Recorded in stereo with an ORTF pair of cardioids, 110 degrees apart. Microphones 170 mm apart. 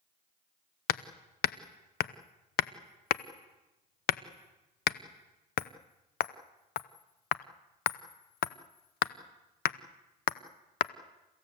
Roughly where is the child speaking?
I don't hear a child speaking.